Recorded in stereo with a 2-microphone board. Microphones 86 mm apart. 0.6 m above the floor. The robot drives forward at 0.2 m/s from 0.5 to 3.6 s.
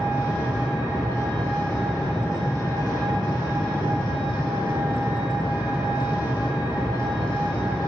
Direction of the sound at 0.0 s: 25° left (ahead or behind).